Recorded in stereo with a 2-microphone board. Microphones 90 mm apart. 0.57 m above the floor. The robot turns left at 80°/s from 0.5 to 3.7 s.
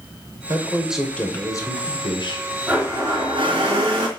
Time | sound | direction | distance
0.5 | a man speaking | 140° right | 3 m
2.7 | a blender | 15° right | 3.5 m